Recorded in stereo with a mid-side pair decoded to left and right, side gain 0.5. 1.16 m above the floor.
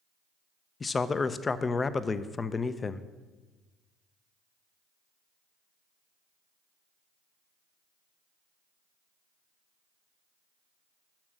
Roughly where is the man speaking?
Ahead left.